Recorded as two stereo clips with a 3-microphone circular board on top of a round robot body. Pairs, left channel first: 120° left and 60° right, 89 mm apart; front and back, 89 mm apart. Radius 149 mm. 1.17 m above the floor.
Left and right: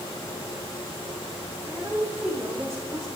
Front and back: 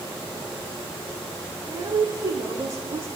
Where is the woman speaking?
140° right, 3.5 m; by 3.1 s 150° right, 2.5 m.